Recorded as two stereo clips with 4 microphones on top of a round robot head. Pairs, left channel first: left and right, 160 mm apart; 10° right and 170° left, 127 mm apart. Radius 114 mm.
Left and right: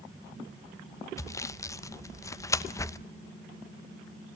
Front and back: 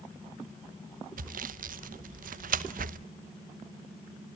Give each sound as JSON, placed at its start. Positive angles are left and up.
{"t": 1.2, "sound": "sawing", "azimuth_deg": 160, "distance_m": 0.9}